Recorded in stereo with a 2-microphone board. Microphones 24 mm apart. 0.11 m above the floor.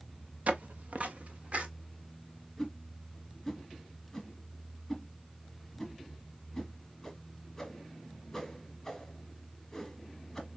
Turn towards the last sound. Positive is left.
turn(degrees=10)  # may be behind; listen again after turning